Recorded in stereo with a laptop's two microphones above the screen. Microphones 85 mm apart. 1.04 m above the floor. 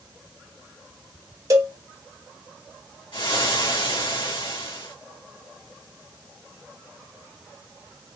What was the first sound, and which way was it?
A cowbell, 40° right (ahead or behind).